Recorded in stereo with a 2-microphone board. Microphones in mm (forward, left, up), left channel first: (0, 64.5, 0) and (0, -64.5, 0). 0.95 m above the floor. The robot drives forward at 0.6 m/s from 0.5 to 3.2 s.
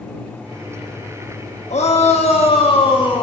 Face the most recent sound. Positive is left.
turn(degrees=40)  # may be behind; listen again after turning